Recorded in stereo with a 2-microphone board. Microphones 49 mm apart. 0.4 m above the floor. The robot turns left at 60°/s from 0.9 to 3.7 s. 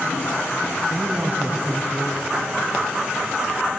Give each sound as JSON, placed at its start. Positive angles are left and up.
{"t": 0.9, "sound": "a woman speaking", "azimuth_deg": -120, "distance_m": 3.5}